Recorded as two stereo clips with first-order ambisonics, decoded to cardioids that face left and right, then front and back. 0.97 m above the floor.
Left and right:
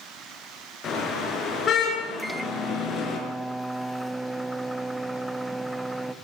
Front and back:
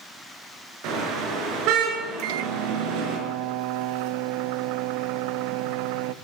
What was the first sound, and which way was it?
A car horn, 150° left.